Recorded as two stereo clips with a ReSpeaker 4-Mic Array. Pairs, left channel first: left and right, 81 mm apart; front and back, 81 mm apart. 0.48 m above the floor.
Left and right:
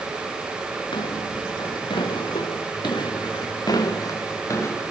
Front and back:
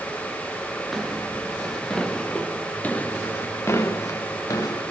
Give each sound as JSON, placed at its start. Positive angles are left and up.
{"t": 0.9, "sound": "footsteps", "azimuth_deg": 90, "distance_m": 6.5}